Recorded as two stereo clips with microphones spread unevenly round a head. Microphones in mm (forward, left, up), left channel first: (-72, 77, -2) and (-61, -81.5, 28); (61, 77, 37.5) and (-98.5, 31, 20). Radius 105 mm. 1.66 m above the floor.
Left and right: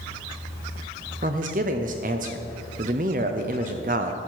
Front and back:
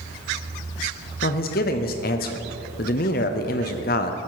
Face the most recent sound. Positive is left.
turn(degrees=-30)